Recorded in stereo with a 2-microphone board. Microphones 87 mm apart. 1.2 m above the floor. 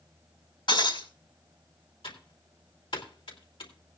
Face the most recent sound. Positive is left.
turn(degrees=80)